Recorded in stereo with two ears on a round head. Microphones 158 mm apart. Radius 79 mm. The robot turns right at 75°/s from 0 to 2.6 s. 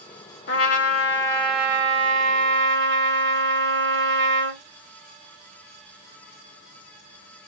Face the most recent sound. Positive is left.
turn(degrees=-100)